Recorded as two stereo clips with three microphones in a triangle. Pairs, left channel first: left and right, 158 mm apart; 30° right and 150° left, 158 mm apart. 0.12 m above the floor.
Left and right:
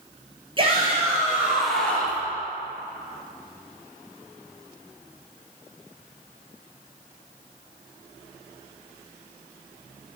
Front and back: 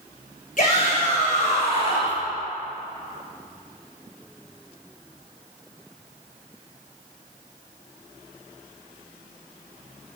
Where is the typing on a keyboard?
No typing on a keyboard in this recording.